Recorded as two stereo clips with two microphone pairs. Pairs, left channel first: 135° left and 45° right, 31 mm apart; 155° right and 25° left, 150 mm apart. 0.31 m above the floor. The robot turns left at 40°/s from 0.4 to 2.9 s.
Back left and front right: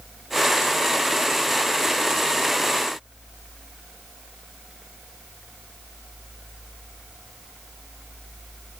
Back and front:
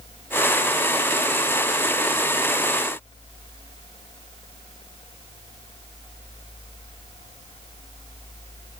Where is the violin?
No violin in this recording.